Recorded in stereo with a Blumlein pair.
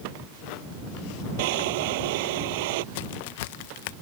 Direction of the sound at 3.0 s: 50° left.